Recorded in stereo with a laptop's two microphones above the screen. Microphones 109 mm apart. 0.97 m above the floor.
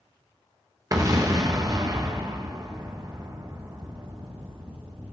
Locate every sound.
0.9 s an explosion: 35° right (ahead or behind), 1.1 m